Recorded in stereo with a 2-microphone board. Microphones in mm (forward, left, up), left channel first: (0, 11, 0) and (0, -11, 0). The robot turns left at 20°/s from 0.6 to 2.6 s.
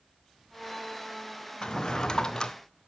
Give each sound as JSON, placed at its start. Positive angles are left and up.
{"t": 1.6, "sound": "a drawer", "side_deg": 40, "distance_m": 0.6}